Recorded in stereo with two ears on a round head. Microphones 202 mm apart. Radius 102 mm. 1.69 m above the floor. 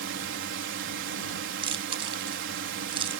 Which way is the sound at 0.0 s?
55° right (ahead or behind).